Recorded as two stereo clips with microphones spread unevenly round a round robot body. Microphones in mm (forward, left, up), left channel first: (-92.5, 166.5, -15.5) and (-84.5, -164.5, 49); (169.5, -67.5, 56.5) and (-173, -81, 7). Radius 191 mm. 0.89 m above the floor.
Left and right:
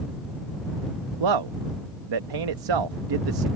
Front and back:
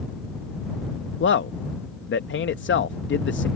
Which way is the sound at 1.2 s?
60° right.